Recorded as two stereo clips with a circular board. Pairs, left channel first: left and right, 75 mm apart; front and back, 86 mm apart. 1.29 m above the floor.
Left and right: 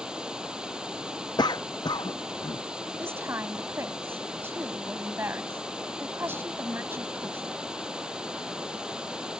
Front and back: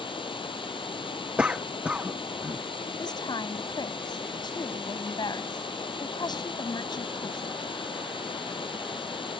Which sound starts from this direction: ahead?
Running water, at 0.0 s.